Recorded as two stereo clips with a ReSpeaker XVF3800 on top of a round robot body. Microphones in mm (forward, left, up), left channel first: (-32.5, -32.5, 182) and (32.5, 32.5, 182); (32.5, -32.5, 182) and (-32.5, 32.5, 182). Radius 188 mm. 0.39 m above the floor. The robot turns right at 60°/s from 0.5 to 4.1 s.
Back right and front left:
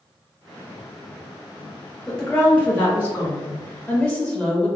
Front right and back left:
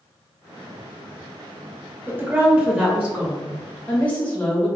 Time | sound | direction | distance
2.1 | a woman speaking | 145° left | 1.1 m